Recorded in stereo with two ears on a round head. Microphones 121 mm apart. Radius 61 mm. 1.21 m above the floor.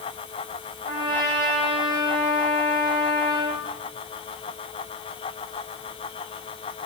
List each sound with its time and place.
0.8 s a trumpet: 30° right (ahead or behind), 9.5 m